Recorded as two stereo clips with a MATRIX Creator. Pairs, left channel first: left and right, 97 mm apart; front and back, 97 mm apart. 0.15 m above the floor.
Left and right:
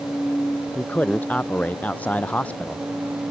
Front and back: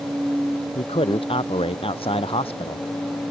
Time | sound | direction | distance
0.8 | a man speaking | 15° left | ?